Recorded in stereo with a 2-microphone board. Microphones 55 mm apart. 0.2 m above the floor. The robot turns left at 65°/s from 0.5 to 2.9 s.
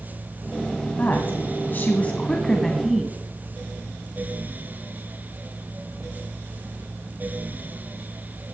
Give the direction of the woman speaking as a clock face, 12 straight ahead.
8 o'clock.